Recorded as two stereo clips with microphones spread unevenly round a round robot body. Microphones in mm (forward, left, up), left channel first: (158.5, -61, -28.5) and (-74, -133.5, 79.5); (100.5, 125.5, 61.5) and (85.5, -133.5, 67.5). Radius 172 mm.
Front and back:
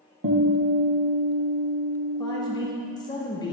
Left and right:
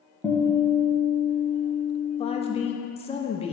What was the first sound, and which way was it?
A guitar, straight behind.